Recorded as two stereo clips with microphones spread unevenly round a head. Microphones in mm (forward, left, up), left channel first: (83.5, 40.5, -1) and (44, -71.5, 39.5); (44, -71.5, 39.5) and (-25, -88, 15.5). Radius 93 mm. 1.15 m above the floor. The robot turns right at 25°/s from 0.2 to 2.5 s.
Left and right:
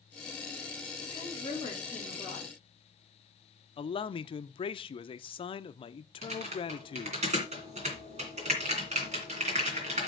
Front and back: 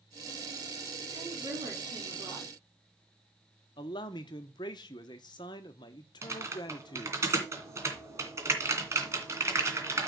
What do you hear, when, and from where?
1.1 s a woman speaking: 130° left, 3.5 m; by 2.5 s 165° left, 3.5 m
3.8 s a man speaking: 60° left, 0.7 m
6.2 s typing on a keyboard: 110° right, 2.5 m